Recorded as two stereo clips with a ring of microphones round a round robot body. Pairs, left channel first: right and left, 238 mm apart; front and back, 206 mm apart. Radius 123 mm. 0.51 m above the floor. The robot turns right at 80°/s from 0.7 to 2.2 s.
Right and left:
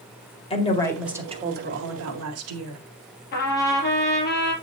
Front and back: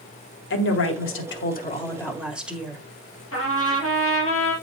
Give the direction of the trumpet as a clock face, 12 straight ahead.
1 o'clock.